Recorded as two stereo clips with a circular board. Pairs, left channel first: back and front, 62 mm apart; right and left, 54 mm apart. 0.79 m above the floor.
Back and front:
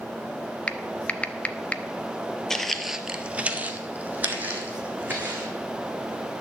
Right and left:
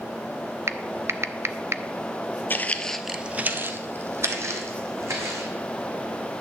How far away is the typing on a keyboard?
About 0.7 m.